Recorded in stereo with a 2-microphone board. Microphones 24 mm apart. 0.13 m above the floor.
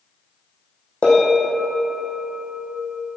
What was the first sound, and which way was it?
A bell, 55° left (ahead or behind).